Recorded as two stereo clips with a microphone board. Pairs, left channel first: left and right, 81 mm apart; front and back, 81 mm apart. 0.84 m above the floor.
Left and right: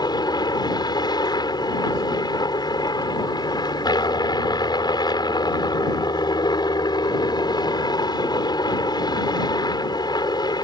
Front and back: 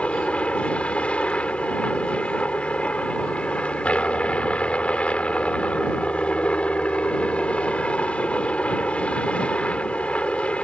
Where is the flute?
I don't hear a flute.